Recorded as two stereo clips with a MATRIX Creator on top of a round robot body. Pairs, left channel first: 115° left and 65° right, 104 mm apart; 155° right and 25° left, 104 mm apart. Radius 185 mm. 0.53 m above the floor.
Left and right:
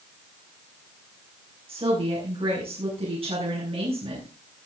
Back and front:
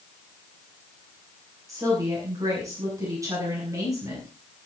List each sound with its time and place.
1.7 s a woman speaking: 40° right, 7.5 m